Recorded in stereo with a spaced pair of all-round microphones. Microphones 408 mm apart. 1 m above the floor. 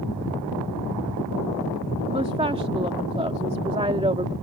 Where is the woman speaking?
15° right (ahead or behind).